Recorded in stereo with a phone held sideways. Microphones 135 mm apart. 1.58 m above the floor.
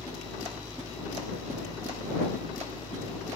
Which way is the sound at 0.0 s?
30° left (ahead or behind).